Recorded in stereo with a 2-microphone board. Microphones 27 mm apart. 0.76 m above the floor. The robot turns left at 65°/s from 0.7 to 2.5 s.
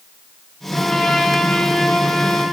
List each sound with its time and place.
0.7 s a trumpet: straight behind, 9.5 m; by 2.4 s 70° left, 9.5 m